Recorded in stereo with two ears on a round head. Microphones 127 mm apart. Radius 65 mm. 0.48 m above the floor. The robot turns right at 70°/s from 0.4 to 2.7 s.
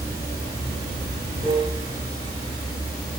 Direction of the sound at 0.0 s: 150° right.